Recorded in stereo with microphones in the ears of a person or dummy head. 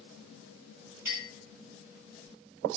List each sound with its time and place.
1.1 s a clink: 20° right (ahead or behind), 1.7 m